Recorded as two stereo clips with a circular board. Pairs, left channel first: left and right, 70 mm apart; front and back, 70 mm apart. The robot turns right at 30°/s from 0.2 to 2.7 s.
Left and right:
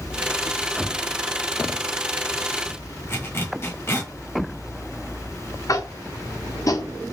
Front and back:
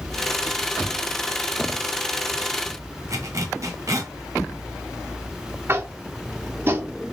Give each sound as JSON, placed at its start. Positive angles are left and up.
{"t": 3.1, "sound": "a zipper", "azimuth_deg": 145, "distance_m": 1.0}
{"t": 5.7, "sound": "tapping", "azimuth_deg": 125, "distance_m": 0.6}